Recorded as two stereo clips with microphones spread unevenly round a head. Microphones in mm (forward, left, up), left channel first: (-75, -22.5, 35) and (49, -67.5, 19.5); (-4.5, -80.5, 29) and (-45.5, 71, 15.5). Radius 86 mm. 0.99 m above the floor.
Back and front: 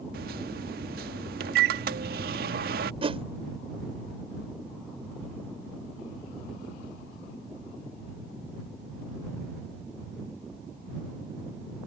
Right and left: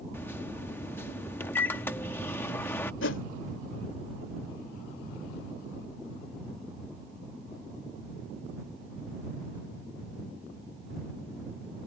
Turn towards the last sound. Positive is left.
turn(degrees=-65)